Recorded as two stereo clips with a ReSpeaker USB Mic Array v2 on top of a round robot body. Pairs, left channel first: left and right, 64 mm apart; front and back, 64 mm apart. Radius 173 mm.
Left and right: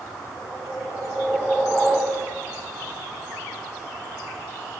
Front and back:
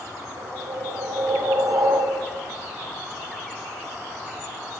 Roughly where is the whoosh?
Behind.